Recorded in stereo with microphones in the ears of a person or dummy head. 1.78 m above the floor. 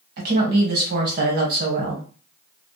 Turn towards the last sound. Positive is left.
turn(degrees=-50)  # may be behind; listen again after turning